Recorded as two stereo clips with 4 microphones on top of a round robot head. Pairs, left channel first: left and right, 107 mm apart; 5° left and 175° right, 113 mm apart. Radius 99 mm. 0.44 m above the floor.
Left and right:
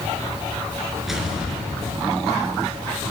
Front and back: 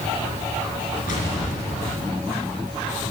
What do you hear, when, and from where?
1.1 s an explosion: 5° right, 4 m